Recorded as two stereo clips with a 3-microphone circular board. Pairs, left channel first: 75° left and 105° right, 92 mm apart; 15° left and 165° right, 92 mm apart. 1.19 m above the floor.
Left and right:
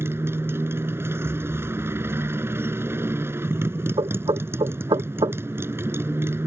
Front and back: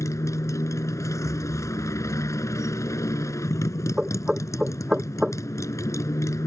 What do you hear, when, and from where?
0.0 s a motorcycle: 40° right
1.2 s a thud: 100° right
4.0 s knocking: 85° right